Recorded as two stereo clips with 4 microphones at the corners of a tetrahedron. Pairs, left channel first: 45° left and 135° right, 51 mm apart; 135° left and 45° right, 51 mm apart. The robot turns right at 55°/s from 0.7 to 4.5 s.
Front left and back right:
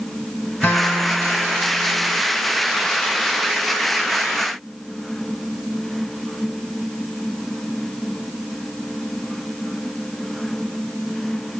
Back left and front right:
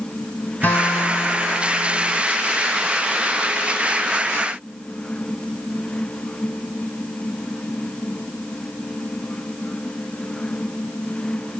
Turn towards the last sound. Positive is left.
turn(degrees=-55)